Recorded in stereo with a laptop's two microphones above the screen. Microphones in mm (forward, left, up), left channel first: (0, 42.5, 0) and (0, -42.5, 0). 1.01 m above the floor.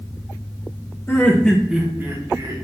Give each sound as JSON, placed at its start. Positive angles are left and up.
{"t": 1.1, "sound": "laughter", "side_deg": 25, "distance_m": 0.6}